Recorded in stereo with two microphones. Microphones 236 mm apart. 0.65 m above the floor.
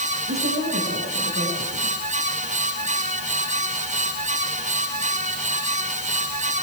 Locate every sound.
0.3 s a woman speaking: 65° right (ahead or behind), 5.5 m